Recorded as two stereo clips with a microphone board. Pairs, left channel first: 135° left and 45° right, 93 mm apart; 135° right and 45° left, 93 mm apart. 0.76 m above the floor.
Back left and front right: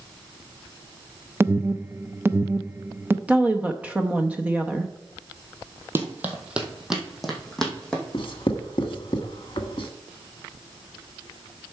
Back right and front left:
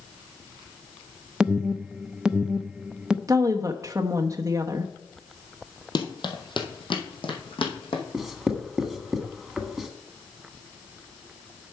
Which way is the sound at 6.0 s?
110° right.